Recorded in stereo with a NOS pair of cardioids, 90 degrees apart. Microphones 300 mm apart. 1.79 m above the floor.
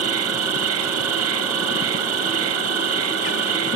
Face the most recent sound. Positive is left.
turn(degrees=-70)